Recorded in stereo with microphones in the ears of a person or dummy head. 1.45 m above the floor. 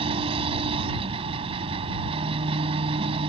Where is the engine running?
30° right (ahead or behind).